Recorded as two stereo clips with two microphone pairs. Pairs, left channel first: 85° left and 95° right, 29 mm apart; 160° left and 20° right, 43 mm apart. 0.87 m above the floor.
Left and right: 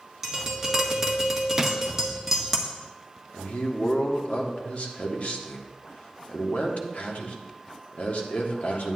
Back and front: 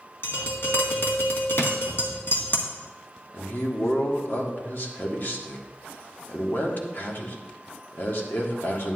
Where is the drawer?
165° right, 0.8 m.